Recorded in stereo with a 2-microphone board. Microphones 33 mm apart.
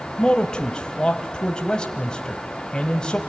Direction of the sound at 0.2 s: 30° left (ahead or behind).